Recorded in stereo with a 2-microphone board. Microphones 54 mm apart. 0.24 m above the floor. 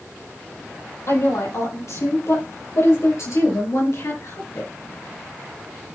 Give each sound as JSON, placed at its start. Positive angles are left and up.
{"t": 1.1, "sound": "a woman speaking", "side_deg": 60, "distance_m": 7.0}